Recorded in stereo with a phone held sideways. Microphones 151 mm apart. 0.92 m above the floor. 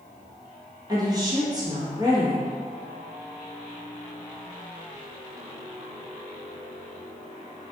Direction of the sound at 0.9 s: 25° right (ahead or behind).